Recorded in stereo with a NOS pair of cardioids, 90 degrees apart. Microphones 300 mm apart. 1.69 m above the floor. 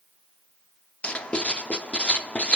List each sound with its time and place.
1.0 s writing: 5° left, 0.7 m